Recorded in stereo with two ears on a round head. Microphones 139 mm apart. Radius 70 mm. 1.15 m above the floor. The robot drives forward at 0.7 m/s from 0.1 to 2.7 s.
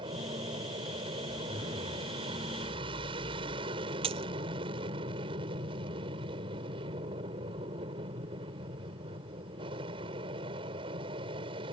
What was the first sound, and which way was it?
An aircraft, 30° right (ahead or behind).